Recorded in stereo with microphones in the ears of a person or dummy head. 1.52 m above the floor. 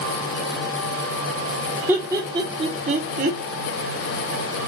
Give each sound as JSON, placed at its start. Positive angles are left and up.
{"t": 1.9, "sound": "laughter", "side_deg": -15, "distance_m": 1.3}